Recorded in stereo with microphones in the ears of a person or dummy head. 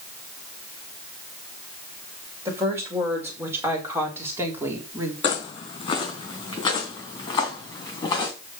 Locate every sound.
2.5 s a woman speaking: 20° right (ahead or behind), 5.5 m; by 5.1 s 15° right (ahead or behind), 3 m
5.2 s footsteps: 35° left (ahead or behind), 4 m; by 8.3 s 25° left (ahead or behind), 5.5 m